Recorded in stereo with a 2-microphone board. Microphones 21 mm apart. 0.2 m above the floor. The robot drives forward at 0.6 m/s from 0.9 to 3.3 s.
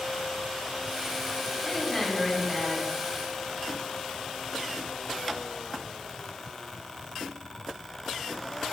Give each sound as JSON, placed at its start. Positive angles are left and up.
{"t": 1.6, "sound": "a woman speaking", "side_deg": -5, "distance_m": 4.5}